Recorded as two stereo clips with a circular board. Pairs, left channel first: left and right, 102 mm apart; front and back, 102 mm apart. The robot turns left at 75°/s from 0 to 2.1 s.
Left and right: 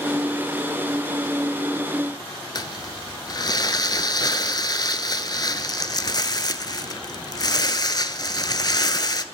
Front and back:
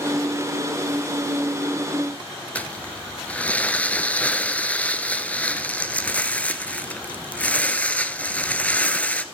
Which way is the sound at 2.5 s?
70° left.